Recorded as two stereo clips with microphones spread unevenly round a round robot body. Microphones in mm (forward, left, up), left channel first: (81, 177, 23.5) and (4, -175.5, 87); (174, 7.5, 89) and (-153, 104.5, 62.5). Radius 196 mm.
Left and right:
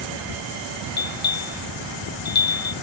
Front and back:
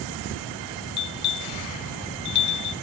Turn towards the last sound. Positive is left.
turn(degrees=10)